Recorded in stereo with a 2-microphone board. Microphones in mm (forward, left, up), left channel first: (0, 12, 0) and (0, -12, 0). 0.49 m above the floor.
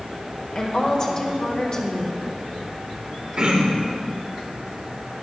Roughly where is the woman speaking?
Left.